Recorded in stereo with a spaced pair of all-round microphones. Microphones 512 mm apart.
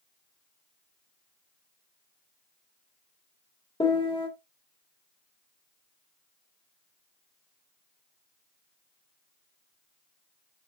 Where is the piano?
10° left (ahead or behind), 1.9 m.